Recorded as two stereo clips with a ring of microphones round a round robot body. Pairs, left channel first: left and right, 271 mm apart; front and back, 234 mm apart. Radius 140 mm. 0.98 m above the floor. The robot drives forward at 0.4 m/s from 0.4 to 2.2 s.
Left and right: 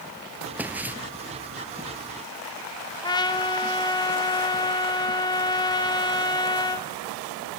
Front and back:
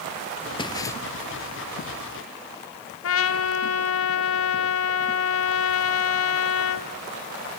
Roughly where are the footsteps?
Ahead.